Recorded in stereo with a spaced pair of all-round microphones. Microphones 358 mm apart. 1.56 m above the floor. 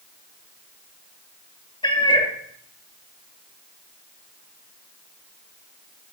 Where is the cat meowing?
15° left (ahead or behind), 1.3 m.